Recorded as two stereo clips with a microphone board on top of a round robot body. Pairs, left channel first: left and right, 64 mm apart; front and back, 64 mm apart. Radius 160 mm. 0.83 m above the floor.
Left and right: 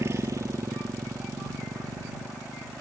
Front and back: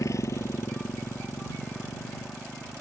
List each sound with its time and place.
0.0 s a motorcycle: 40° right; by 2.8 s 55° right